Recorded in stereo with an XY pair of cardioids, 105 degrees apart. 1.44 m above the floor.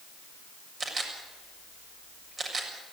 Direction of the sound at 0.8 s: 40° right.